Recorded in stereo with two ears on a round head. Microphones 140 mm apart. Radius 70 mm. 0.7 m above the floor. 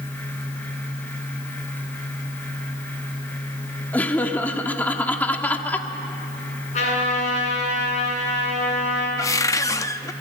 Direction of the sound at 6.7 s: 50° left (ahead or behind).